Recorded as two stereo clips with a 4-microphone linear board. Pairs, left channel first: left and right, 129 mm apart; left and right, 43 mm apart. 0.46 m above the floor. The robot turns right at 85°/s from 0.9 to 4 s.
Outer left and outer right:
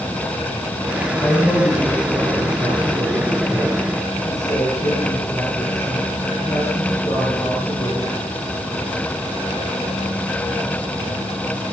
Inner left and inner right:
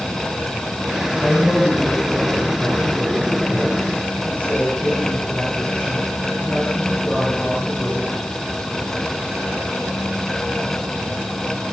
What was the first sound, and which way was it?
A woman speaking, 155° left.